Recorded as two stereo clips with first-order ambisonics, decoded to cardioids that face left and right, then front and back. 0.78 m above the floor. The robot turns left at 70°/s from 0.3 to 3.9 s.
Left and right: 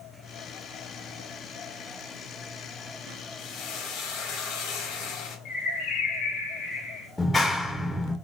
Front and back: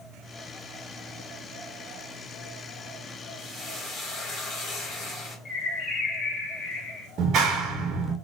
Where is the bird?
55° left, 1.3 m.